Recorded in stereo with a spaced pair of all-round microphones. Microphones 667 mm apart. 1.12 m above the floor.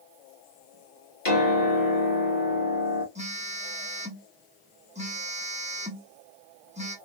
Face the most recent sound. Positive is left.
turn(degrees=-10)  # may be behind; listen again after turning